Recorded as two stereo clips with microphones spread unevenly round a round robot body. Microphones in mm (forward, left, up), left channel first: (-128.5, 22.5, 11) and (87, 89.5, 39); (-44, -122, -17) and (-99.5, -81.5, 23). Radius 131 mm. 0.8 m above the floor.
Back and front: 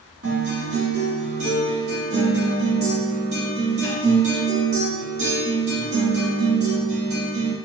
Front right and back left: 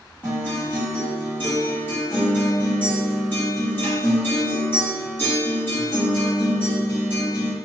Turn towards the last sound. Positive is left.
turn(degrees=-25)